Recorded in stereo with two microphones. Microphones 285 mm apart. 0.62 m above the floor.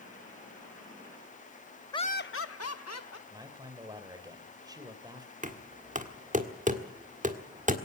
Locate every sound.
1.9 s laughter: 15° left (ahead or behind), 0.6 m; by 3.2 s 65° left (ahead or behind), 1.6 m
3.3 s a man speaking: 15° right (ahead or behind), 3 m
5.4 s knocking: 25° right (ahead or behind), 1.5 m